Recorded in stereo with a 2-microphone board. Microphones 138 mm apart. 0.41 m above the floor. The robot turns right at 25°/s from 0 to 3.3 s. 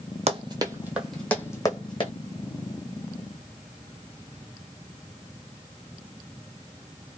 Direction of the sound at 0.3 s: 50° right (ahead or behind).